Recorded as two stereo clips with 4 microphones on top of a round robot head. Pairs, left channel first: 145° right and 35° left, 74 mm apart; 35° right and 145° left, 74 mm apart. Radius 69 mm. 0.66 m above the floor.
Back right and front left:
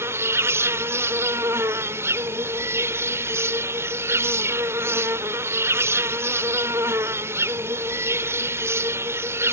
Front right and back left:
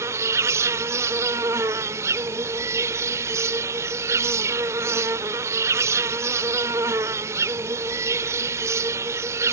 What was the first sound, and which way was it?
An insect, 90° left.